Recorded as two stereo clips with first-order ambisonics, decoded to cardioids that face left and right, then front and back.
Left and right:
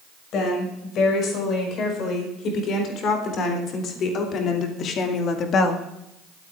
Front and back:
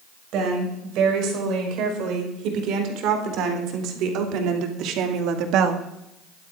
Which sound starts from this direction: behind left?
A woman speaking, at 0.3 s.